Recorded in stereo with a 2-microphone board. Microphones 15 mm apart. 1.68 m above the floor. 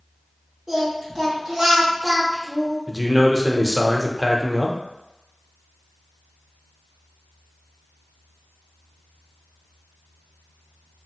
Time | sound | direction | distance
0.7 | singing | 25° right (ahead or behind) | 1.4 m
2.9 | a man speaking | 20° right (ahead or behind) | 0.5 m